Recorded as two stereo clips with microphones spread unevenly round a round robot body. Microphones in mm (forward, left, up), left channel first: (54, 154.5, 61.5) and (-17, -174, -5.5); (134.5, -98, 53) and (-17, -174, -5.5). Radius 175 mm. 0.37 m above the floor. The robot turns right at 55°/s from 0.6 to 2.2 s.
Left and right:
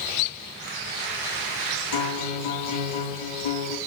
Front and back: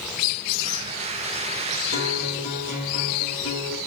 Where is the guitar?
50° left, 4 m; by 3.8 s 65° left, 4 m.